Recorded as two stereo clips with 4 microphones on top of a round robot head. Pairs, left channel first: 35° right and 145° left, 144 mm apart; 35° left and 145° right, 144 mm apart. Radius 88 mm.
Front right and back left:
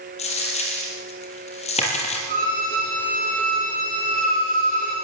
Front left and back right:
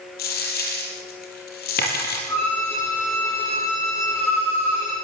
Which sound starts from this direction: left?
A violin, at 2.3 s.